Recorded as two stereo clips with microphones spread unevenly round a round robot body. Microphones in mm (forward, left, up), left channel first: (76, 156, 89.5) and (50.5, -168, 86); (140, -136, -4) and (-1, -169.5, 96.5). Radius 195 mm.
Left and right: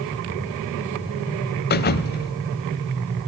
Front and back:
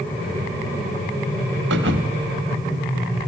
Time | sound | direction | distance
1.7 | a thud | 145° left | 0.9 m